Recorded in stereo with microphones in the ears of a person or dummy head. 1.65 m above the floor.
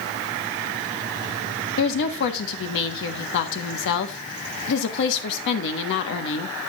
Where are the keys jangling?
No keys jangling in this recording.